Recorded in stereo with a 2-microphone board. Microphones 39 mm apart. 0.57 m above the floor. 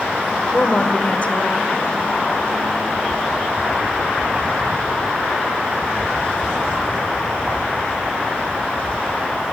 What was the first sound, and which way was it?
A woman speaking, 40° left (ahead or behind).